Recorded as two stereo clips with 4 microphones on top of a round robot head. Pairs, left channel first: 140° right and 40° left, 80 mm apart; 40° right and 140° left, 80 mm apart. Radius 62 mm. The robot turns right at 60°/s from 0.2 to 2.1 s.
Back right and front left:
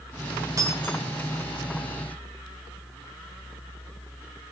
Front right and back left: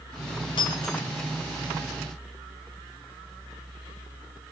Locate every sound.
0.6 s breaking glass: 10° right, 2 m; by 1.0 s 15° left, 2 m